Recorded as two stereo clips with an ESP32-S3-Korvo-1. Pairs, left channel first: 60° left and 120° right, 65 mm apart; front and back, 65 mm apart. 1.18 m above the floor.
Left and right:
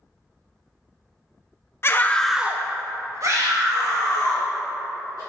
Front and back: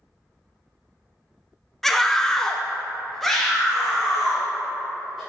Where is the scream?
85° left, 0.6 m; by 5.2 s 90° right, 3 m.